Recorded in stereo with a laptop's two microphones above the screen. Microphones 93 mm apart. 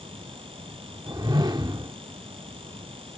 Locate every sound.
0.0 s a fan: 75° right (ahead or behind)
1.1 s a whoosh: 50° right (ahead or behind)